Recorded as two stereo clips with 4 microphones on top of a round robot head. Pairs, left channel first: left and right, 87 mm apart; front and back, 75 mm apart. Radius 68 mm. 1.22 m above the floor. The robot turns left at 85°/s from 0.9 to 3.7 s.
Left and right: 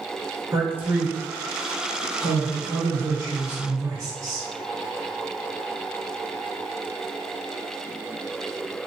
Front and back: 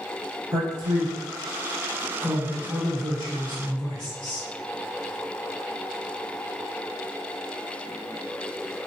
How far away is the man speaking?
About 1.5 m.